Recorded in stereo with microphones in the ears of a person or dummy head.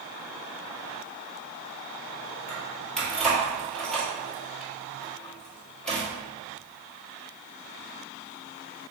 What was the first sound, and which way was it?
Keys jangling, centre (ahead or behind).